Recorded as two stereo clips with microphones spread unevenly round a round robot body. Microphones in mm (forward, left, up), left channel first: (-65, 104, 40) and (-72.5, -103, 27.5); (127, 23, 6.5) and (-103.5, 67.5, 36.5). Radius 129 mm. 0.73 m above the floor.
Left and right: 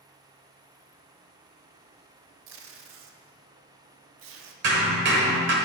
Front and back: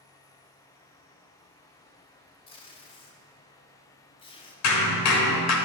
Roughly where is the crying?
No crying in this recording.